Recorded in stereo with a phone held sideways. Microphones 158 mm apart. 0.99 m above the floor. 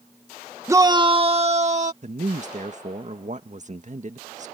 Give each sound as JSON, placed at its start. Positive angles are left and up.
{"t": 0.7, "sound": "a shout", "side_deg": -20}
{"t": 2.0, "sound": "a man speaking", "side_deg": -50}